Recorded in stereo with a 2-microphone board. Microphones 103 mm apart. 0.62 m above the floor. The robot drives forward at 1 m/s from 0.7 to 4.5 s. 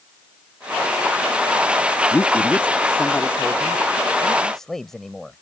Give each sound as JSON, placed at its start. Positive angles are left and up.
{"t": 2.1, "sound": "a man speaking", "side_deg": 20}